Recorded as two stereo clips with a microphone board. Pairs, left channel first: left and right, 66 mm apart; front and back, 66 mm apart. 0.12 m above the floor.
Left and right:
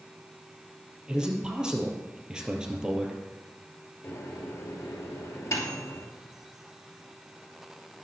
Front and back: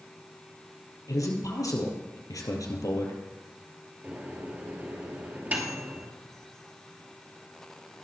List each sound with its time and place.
1.1 s a man speaking: 15° right, 2.5 m
4.0 s a microwave: 125° left, 2.5 m